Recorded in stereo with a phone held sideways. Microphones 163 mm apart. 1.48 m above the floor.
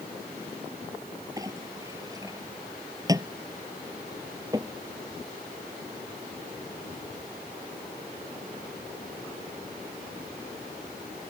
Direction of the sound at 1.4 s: 20° right (ahead or behind).